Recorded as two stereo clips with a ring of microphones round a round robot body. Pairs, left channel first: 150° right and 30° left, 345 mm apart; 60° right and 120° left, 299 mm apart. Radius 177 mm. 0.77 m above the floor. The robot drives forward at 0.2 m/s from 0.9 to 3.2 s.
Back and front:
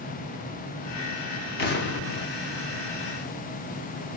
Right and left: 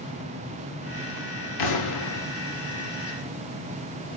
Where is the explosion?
85° right, 0.7 m; by 2.3 s 95° right, 0.7 m.